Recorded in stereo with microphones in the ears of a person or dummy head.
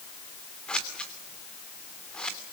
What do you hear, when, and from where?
0.7 s scissors: 10° left (ahead or behind), 3 m